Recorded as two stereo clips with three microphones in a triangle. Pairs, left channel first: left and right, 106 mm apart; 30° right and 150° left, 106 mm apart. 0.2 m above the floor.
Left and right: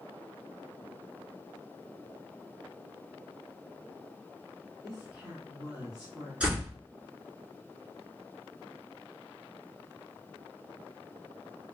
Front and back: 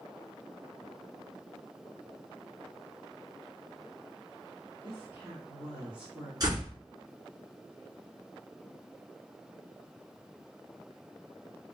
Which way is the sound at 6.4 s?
165° right.